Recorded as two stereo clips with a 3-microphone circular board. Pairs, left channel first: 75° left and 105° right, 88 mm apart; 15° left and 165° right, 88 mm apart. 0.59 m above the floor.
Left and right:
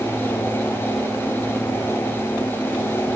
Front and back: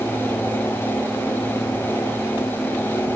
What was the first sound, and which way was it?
Only background noise.